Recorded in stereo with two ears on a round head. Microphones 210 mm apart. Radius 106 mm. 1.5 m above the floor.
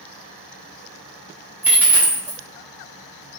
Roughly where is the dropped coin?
Centre.